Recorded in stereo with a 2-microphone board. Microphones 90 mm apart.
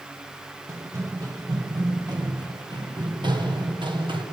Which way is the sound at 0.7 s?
35° right (ahead or behind).